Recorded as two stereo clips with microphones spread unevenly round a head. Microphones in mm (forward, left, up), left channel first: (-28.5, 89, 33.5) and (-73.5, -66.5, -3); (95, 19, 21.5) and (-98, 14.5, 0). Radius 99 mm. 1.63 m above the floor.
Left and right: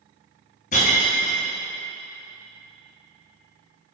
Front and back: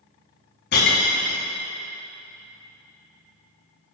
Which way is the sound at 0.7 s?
30° left.